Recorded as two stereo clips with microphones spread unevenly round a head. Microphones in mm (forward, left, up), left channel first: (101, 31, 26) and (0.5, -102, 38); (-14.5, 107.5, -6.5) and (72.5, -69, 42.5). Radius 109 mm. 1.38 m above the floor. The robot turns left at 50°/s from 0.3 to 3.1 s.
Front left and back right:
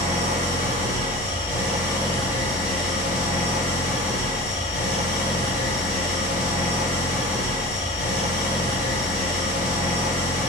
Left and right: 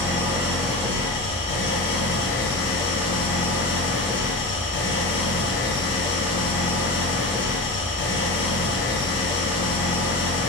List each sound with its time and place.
0.0 s an engine running: 120° right, 0.9 m; by 10.5 s 100° left, 0.9 m